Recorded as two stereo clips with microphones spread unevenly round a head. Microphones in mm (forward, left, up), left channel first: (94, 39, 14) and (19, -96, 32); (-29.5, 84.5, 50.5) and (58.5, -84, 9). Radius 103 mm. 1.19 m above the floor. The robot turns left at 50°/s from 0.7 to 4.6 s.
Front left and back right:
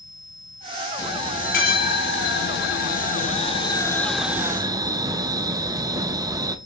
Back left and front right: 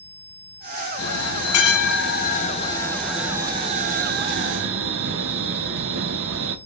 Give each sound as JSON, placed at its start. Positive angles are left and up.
{"t": 1.0, "sound": "a bell", "azimuth_deg": 130, "distance_m": 0.5}